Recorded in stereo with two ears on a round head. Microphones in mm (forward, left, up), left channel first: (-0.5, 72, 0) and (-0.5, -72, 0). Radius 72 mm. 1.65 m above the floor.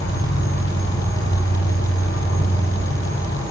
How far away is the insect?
About 3 m.